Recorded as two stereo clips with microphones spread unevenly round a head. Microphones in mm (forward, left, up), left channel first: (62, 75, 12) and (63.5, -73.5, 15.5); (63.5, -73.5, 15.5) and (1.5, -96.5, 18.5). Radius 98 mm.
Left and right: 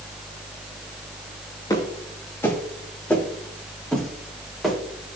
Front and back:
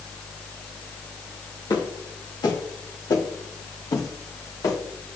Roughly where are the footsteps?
Ahead left.